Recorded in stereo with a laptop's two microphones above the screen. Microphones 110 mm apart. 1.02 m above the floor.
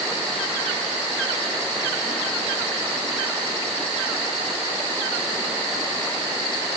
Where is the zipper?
I don't hear a zipper.